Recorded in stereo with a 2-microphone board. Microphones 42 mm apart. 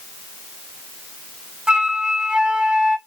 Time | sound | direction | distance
1.7 | a flute | 25° right (ahead or behind) | 0.6 m